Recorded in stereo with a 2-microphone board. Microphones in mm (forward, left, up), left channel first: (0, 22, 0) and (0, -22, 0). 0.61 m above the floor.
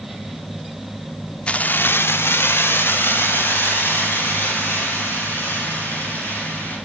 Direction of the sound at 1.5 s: 25° left (ahead or behind).